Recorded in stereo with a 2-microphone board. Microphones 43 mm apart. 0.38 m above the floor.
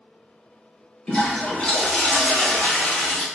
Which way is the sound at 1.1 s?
20° left (ahead or behind).